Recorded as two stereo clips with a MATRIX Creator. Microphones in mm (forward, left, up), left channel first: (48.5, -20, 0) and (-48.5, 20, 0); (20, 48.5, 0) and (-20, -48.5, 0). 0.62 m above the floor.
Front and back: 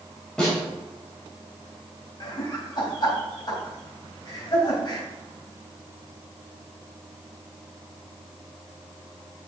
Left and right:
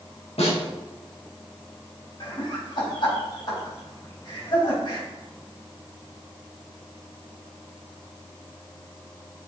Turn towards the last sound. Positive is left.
turn(degrees=25)